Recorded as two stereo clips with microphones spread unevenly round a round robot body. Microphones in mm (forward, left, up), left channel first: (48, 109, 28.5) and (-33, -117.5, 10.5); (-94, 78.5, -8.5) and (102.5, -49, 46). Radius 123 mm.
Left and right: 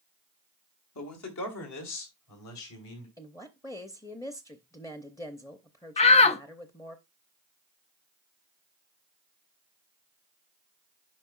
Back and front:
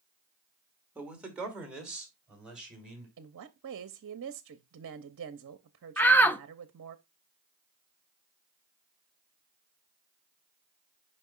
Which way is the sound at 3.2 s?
5° right.